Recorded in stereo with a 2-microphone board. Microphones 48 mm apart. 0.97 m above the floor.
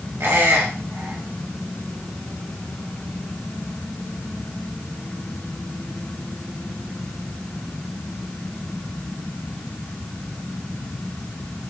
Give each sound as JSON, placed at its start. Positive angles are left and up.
{"t": 0.2, "sound": "a squeak", "side_deg": -55, "distance_m": 0.9}